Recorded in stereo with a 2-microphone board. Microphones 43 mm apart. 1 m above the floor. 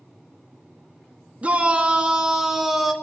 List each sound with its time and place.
1.4 s a shout: 30° right (ahead or behind), 1.6 m; by 2.9 s centre (ahead or behind), 1.5 m